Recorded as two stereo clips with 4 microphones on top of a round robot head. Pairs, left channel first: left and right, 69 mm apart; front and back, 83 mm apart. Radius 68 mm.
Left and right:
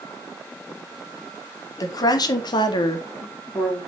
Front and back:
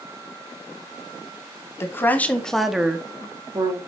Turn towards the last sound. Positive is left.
turn(degrees=145)